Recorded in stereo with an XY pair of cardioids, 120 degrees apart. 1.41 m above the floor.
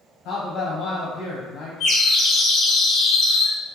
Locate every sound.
0.2 s a man speaking: 65° left, 1.1 m
1.8 s a bird: 60° left, 0.8 m